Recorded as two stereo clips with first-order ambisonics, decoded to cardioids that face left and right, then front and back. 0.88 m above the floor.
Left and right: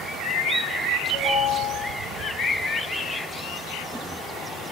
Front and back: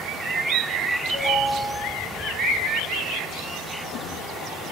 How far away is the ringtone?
About 5 m.